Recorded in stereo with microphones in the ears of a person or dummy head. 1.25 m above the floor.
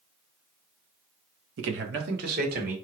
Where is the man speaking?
75° right (ahead or behind), 1.2 m; by 2.7 s 45° right (ahead or behind), 2 m.